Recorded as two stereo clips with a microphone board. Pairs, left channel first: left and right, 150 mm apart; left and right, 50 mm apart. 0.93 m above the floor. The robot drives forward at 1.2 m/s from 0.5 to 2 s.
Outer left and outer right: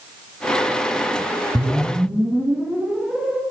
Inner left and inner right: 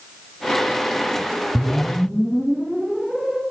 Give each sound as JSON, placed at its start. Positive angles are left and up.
{"t": 1.6, "sound": "a whoosh", "side_deg": -10, "distance_m": 0.6}